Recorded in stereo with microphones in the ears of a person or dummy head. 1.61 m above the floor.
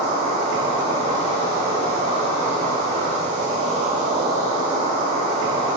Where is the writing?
No writing in this recording.